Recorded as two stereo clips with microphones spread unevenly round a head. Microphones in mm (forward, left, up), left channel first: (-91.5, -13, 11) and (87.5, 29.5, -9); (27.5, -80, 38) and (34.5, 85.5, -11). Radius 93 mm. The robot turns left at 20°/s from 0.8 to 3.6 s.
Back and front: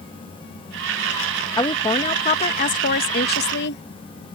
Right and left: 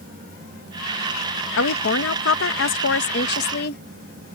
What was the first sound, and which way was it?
A woman speaking, 95° right.